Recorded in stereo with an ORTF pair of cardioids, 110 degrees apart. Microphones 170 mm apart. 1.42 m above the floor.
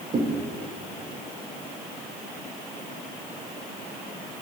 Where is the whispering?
I don't hear whispering.